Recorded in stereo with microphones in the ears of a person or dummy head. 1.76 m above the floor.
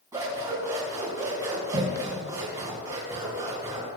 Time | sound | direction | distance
0.1 | scissors | 20° right (ahead or behind) | 4 m